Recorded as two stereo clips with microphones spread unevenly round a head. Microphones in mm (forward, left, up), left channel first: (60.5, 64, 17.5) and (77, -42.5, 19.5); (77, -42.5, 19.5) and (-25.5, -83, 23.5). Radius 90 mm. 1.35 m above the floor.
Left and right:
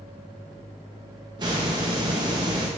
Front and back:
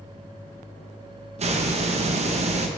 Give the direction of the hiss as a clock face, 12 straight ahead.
5 o'clock.